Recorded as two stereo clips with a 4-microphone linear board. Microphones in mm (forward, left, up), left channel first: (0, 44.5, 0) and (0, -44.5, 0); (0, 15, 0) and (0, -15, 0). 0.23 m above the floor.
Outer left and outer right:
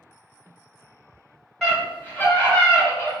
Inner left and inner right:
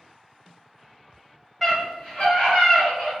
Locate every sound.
1.6 s a scream: 5° left (ahead or behind), 1.6 m; by 3.1 s 25° left (ahead or behind), 1.9 m